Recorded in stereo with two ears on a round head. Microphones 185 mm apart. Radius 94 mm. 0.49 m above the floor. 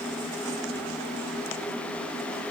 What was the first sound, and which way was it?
Only background noise.